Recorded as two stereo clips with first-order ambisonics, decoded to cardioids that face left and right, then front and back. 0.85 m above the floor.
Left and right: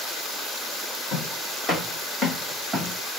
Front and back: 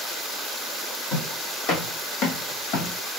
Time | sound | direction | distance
1.1 | footsteps | 30° left | 1.7 m